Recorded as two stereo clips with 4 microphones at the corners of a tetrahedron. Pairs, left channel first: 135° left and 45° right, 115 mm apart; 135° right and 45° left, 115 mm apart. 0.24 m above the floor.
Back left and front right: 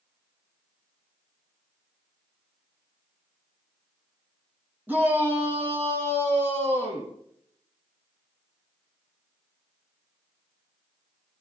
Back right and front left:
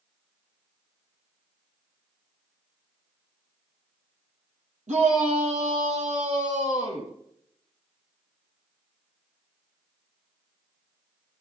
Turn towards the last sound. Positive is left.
turn(degrees=25)